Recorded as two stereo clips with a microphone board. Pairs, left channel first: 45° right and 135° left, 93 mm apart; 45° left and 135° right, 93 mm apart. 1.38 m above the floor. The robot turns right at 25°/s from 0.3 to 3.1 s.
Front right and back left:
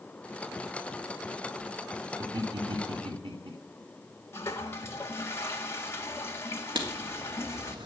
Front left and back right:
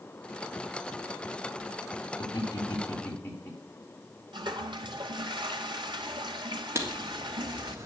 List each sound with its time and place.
2.2 s laughter: 90° left, 3.5 m; by 3.5 s 110° left, 3.5 m
4.3 s a toilet flushing: 105° right, 1.6 m
6.8 s writing: 165° left, 3 m